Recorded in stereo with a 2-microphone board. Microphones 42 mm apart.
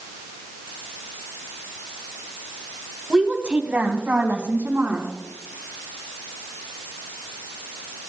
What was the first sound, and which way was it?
A woman speaking, 15° right (ahead or behind).